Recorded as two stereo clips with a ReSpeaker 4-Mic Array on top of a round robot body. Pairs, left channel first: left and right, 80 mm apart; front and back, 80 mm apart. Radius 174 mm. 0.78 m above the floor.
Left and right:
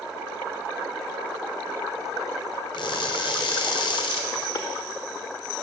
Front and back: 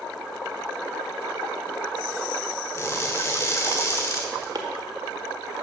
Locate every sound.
2.7 s crushing: 60° left, 1.1 m
4.5 s chopping: 140° left, 1.0 m